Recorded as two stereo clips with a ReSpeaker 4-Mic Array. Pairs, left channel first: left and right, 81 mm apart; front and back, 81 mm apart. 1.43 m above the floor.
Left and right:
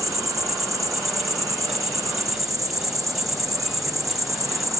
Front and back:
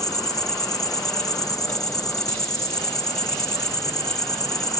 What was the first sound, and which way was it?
An insect, 45° right.